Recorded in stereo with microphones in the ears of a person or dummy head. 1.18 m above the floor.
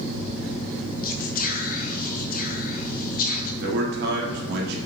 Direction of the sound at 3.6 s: 70° right (ahead or behind).